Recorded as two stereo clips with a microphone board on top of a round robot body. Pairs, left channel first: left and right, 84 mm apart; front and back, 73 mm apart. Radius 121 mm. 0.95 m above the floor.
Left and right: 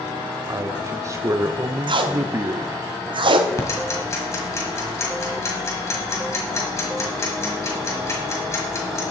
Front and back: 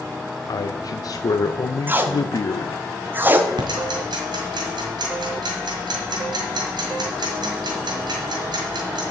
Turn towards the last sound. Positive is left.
turn(degrees=150)